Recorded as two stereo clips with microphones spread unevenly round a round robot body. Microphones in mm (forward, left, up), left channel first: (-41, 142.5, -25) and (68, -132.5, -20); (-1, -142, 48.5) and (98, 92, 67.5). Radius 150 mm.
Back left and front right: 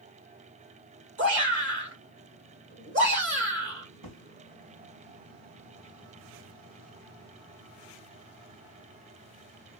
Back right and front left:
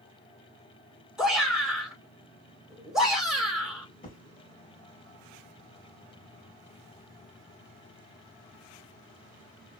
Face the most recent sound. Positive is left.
turn(degrees=-60)